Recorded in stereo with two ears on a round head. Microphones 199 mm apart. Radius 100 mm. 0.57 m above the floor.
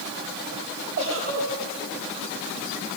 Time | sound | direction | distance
1.0 | a giggle | 60° right (ahead or behind) | 10 m